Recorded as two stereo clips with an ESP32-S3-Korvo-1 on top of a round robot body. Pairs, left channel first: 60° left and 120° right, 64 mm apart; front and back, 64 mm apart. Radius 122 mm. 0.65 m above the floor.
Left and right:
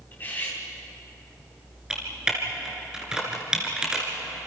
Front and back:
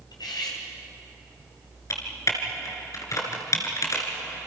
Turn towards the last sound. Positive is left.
turn(degrees=-40)